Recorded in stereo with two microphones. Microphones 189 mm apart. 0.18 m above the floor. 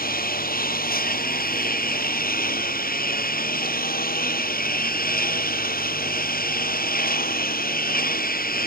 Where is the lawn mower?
55° left (ahead or behind).